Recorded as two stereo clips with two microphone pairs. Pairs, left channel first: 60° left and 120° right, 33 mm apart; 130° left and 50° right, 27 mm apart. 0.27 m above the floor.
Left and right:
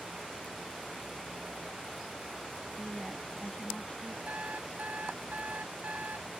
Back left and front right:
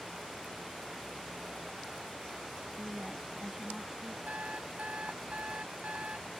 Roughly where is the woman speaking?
Ahead.